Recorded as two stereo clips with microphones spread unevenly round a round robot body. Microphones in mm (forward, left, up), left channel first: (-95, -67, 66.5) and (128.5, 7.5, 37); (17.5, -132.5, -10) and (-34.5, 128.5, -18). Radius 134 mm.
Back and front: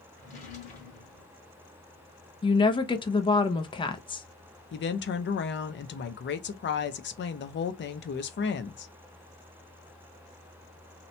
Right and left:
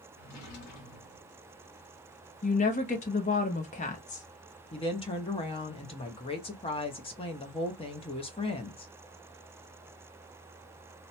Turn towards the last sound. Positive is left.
turn(degrees=-140)